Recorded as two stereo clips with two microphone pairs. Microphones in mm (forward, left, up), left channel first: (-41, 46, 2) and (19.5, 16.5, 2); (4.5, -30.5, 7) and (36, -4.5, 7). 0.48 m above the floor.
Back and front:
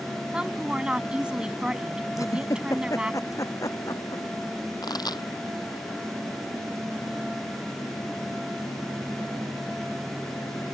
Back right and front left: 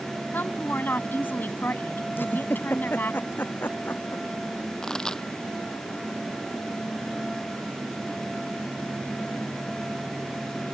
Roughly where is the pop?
Behind left.